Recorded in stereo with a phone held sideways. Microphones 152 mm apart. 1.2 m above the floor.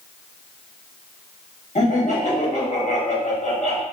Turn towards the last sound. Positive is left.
turn(degrees=55)  # may be behind; listen again after turning